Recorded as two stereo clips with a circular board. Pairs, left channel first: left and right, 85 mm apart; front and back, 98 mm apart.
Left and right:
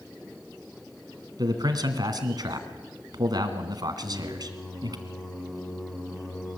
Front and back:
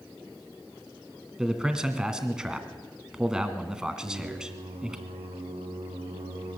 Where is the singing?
175° left, 6.5 m.